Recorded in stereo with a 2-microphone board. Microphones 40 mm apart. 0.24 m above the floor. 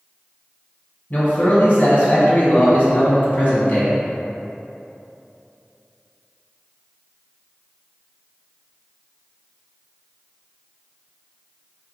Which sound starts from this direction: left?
A man speaking, at 1.1 s.